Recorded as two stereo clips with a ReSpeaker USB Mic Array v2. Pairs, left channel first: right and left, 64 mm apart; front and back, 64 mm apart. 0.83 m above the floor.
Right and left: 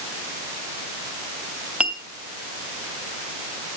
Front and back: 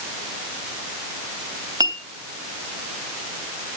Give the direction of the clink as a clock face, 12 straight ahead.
7 o'clock.